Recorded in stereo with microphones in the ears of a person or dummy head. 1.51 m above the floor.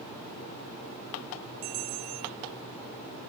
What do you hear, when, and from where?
1.6 s a bell: 80° right